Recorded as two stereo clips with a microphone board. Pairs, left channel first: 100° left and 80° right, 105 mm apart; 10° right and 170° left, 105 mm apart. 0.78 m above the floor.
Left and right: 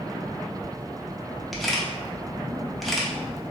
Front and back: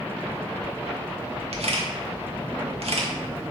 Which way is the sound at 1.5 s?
170° right.